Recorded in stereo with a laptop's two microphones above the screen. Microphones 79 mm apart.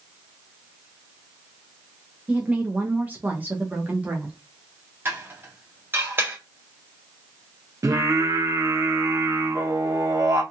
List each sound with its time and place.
2.3 s a woman speaking: 15° right (ahead or behind), 0.7 m; by 4.4 s 20° right (ahead or behind), 1.0 m
5.0 s dishes clattering: 25° right (ahead or behind), 1.0 m
7.8 s singing: 40° right (ahead or behind), 0.9 m